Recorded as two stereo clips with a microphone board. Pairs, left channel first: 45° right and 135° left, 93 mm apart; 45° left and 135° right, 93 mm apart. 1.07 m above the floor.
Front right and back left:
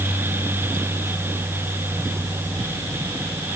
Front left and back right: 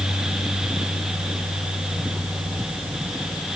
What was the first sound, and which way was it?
Only background noise.